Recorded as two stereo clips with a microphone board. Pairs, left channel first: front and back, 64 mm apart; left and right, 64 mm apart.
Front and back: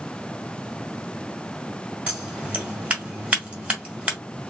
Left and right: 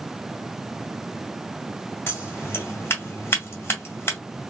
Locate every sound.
2.1 s scissors: 115° left, 2.0 m